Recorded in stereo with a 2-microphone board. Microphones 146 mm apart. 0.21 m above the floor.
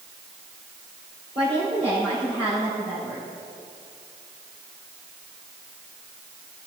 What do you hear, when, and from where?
1.4 s a woman speaking: 40° right (ahead or behind), 4 m